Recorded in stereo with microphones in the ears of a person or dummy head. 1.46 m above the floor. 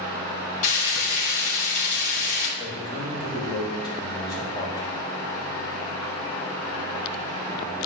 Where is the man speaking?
25° left (ahead or behind), 3.5 m.